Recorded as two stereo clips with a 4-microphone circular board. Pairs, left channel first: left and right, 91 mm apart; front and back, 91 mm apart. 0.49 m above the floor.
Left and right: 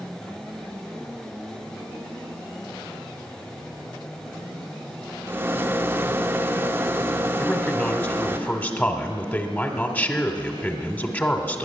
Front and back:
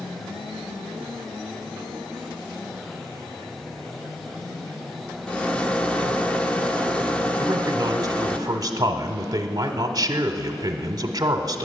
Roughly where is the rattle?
Ahead right.